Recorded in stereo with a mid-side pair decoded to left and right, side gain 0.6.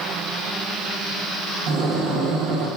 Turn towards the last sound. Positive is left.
turn(degrees=-70)